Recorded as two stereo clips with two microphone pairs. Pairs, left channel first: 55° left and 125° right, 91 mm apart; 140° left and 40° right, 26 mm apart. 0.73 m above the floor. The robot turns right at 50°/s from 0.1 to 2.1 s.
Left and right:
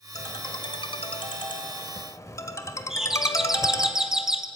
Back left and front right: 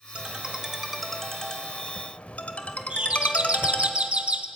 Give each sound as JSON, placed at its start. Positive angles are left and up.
{"t": 0.1, "sound": "a ringtone", "azimuth_deg": 10, "distance_m": 1.9}
{"t": 2.9, "sound": "a doorbell", "azimuth_deg": -40, "distance_m": 1.4}